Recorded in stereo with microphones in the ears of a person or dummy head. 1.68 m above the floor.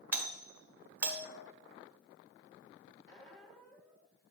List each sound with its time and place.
0.1 s a doorbell: 10° right (ahead or behind), 0.9 m
3.1 s a squeak: 5° left (ahead or behind), 1.3 m